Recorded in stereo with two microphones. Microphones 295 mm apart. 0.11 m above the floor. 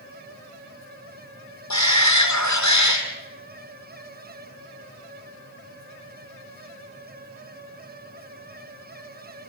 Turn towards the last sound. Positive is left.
turn(degrees=65)  # may be behind; listen again after turning